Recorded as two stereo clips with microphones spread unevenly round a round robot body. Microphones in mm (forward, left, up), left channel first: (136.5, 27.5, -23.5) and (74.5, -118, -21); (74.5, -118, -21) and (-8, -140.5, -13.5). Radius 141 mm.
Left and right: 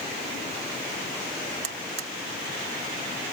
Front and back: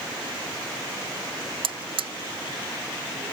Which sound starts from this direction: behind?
A buzzer, at 1.6 s.